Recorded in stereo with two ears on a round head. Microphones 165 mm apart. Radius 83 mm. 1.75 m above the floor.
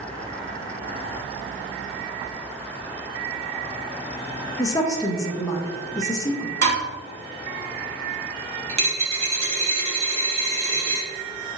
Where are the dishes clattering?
65° right (ahead or behind), 1.9 m.